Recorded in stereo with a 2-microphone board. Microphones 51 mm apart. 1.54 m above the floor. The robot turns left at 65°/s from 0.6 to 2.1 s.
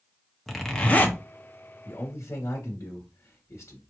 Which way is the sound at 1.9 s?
65° left (ahead or behind).